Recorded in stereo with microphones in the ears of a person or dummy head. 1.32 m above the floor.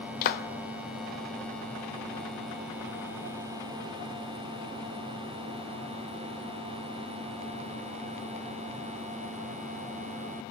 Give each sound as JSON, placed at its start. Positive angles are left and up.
{"t": 0.2, "sound": "a clap", "side_deg": 45, "distance_m": 0.6}